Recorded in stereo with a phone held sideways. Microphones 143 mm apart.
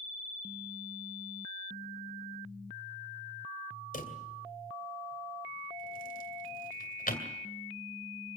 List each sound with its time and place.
3.9 s a drawer: 75° left (ahead or behind), 2.5 m